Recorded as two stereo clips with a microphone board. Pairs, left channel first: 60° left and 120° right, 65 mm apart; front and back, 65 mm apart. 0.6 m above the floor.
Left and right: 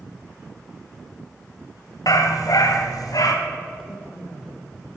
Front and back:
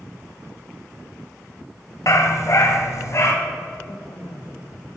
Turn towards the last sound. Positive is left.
turn(degrees=-15)